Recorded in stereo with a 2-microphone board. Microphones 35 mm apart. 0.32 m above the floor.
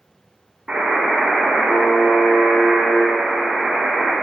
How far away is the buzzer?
About 0.7 m.